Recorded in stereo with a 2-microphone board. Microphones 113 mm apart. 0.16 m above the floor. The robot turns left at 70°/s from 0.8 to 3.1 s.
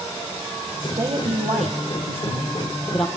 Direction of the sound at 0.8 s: 25° right (ahead or behind).